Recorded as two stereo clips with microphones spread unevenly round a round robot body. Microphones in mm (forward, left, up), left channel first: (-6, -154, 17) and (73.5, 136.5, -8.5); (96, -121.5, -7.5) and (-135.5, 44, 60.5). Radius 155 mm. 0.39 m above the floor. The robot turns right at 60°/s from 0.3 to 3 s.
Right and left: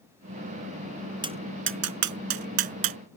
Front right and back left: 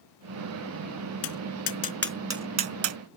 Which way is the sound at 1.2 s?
Straight ahead.